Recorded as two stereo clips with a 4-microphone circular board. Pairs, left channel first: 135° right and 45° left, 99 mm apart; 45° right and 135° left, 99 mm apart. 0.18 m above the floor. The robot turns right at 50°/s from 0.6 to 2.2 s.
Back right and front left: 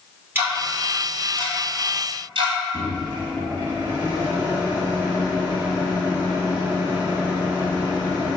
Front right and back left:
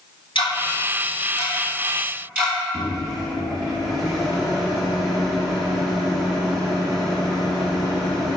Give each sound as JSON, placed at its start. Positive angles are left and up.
{"t": 0.3, "sound": "ticking", "azimuth_deg": -20, "distance_m": 1.2}
{"t": 2.7, "sound": "a microwave", "azimuth_deg": 45, "distance_m": 1.0}